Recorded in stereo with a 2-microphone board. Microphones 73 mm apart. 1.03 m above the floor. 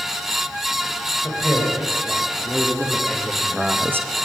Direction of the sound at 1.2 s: 25° left (ahead or behind).